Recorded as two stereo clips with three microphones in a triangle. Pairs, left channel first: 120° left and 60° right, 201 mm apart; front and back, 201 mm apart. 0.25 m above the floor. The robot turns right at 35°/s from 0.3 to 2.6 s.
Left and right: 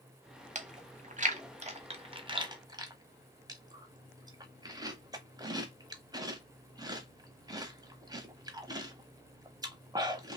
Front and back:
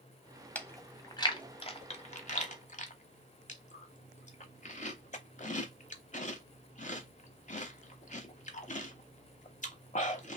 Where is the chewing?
75° right, 0.8 m; by 10.4 s 5° right, 0.8 m.